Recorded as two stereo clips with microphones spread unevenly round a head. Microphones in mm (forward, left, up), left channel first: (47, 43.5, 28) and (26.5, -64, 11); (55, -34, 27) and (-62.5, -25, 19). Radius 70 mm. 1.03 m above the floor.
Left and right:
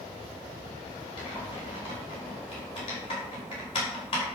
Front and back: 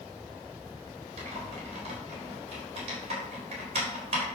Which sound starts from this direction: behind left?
Typing on a keyboard, at 1.2 s.